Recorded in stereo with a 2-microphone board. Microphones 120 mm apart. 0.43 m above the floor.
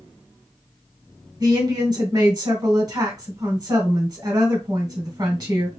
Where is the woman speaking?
35° right (ahead or behind), 1.9 m.